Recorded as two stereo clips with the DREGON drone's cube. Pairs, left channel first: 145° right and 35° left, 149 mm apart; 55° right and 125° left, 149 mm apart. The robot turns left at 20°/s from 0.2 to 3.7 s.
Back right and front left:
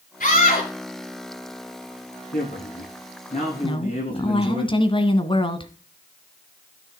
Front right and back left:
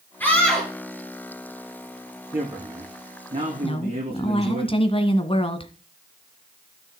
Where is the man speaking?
165° right, 9.5 m; by 4.6 s 170° left, 9.5 m.